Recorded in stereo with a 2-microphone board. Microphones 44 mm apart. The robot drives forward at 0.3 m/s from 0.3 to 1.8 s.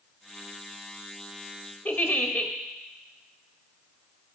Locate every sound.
1.9 s a giggle: 40° left (ahead or behind), 0.8 m